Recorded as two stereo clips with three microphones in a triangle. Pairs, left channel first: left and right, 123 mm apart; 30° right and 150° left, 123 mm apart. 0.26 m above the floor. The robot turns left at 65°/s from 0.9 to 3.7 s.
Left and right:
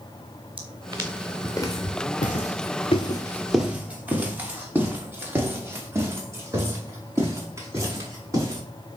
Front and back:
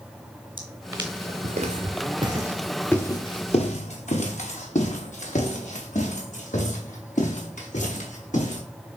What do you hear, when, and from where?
0.6 s footsteps: 135° right, 1.0 m; by 8.6 s 25° right, 4.5 m